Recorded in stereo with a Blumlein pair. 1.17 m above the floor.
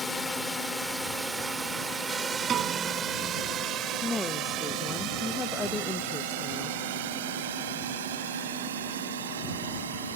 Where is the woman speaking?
10° left.